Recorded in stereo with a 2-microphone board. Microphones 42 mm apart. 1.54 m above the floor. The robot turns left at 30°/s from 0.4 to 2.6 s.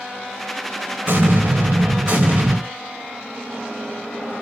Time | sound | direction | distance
1.1 | an explosion | 80° right | 2.5 m